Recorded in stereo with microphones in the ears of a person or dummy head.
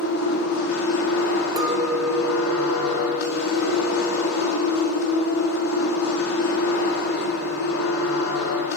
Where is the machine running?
85° left, 5 m.